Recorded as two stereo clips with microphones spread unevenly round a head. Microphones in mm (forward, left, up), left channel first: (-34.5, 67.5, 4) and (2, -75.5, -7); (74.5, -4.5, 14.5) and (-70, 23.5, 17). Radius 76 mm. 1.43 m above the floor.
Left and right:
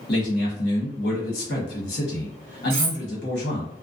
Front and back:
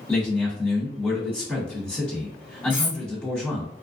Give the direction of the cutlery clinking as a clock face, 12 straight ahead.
3 o'clock.